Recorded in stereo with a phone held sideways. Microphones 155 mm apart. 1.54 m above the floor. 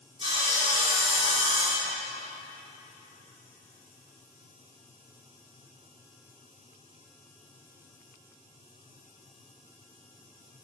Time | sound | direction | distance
0.2 | sawing | 40° right (ahead or behind) | 1.9 m